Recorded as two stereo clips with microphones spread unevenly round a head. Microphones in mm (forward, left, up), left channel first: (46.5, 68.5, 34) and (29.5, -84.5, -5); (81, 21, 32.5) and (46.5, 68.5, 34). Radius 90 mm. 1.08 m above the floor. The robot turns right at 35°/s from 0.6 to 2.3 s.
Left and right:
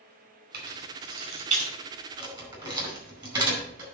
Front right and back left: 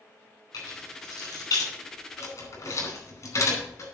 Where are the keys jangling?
95° right, 4.5 m; by 3.9 s 35° right, 4.5 m.